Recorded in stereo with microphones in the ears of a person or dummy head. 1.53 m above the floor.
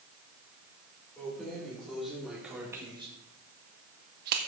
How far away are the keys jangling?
About 3.5 m.